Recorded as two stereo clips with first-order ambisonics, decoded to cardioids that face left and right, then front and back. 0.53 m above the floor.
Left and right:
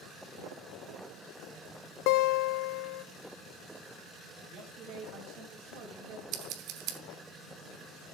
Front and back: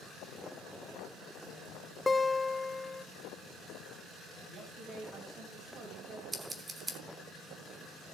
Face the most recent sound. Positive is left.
turn(degrees=-105)